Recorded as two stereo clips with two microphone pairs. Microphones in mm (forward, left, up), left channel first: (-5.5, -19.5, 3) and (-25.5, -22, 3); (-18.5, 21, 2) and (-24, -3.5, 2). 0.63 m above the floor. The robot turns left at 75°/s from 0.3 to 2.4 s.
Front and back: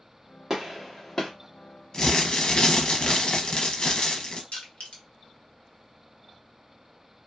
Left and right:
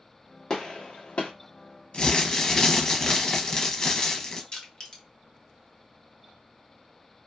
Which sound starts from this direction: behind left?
A gunshot, at 0.5 s.